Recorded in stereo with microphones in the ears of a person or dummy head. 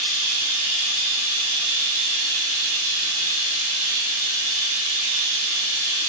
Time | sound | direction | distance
0.0 | running water | 25° right (ahead or behind) | 1.5 m